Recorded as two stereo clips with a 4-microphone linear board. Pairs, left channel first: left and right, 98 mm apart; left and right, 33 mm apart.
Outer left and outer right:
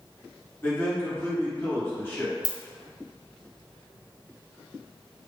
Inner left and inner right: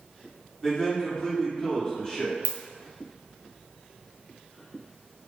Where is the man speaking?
25° left (ahead or behind), 1.3 m.